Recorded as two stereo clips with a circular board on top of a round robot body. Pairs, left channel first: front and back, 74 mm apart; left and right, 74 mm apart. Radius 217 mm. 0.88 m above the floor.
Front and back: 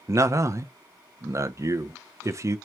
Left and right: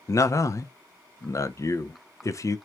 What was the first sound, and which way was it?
A man speaking, 130° left.